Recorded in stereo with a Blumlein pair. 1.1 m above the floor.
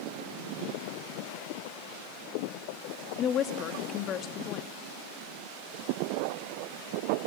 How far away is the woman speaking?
About 2 m.